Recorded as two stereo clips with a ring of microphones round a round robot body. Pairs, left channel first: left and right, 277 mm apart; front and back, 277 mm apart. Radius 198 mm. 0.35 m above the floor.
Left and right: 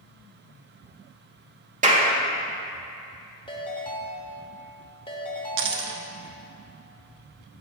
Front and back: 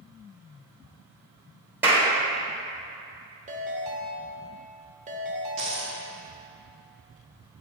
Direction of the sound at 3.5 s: 145° left.